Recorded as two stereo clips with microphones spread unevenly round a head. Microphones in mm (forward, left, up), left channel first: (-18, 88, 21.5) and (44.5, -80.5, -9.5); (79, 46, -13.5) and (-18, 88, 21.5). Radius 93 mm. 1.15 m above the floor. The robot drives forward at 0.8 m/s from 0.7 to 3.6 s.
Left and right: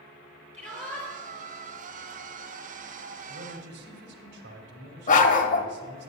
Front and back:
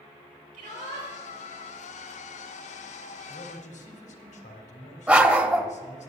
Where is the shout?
165° right, 5.5 m.